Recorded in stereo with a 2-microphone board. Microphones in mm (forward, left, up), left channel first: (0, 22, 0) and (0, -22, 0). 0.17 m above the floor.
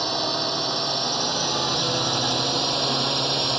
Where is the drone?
Centre (ahead or behind); by 3.6 s 5° right (ahead or behind).